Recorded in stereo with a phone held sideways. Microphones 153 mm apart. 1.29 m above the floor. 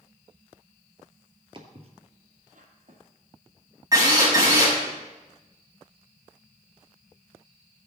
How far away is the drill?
About 5.5 m.